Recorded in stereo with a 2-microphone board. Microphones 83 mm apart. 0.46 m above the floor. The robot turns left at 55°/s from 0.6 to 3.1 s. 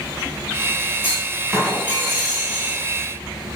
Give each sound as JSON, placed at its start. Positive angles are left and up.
{"t": 1.0, "sound": "a clunk", "azimuth_deg": 25, "distance_m": 3.0}